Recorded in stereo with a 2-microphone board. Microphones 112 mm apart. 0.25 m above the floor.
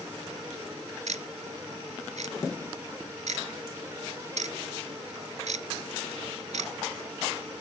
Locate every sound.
1.1 s ticking: 85° right, 0.6 m